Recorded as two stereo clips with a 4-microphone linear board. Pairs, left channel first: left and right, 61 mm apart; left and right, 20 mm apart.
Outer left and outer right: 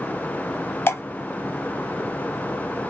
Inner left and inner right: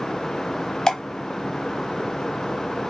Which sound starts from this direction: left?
Dripping, at 0.9 s.